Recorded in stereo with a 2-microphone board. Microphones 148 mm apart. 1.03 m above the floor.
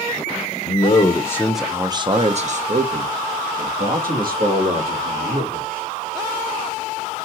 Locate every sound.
0.7 s a man speaking: 50° left (ahead or behind), 0.7 m; by 5.8 s 80° right, 2.5 m